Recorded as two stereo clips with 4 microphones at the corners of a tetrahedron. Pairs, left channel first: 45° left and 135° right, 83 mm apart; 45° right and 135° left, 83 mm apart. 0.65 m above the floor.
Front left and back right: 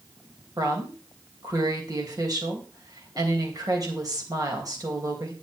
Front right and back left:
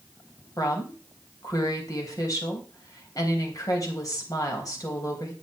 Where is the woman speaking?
90° right, 3 m.